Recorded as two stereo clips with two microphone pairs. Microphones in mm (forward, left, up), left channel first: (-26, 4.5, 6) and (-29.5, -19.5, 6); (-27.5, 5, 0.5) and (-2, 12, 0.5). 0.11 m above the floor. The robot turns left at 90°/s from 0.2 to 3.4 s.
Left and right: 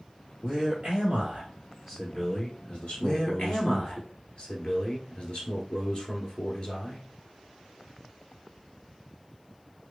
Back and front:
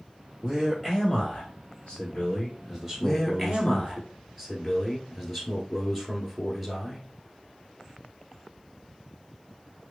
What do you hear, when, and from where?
0.4 s a man speaking: 40° right, 2 m; by 4.0 s 50° left, 2 m
3.0 s a man speaking: 130° left, 1.6 m; by 7.1 s 95° left, 1.6 m